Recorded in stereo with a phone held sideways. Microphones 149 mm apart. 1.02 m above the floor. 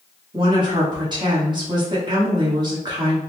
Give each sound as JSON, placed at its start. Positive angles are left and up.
{"t": 0.3, "sound": "a woman speaking", "side_deg": -30, "distance_m": 1.2}